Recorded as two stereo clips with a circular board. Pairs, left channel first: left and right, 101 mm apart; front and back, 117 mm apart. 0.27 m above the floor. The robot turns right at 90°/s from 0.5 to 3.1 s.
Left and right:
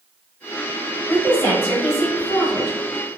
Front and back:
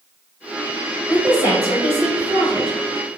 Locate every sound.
1.1 s a woman speaking: 120° left, 1.5 m; by 3.2 s 60° right, 1.5 m